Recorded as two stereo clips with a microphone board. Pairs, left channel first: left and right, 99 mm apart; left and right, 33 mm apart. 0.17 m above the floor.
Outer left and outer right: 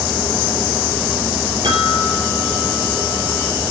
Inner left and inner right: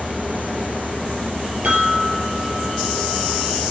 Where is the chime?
55° right (ahead or behind), 4.5 m.